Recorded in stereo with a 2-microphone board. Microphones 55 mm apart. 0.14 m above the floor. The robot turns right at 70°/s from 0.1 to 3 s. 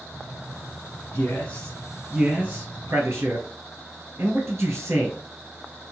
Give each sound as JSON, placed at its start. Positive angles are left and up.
{"t": 1.1, "sound": "a man speaking", "side_deg": 50, "distance_m": 2.5}